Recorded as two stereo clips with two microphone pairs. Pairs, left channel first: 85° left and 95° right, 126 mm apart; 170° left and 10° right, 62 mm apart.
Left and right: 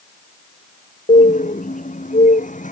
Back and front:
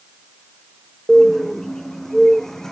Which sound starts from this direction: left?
A bird, at 1.1 s.